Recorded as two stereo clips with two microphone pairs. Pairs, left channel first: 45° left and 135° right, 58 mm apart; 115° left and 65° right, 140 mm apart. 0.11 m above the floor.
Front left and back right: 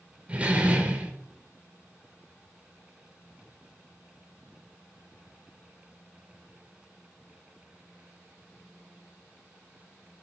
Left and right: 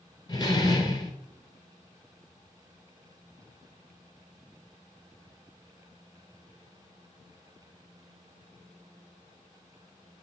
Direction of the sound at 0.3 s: 165° left.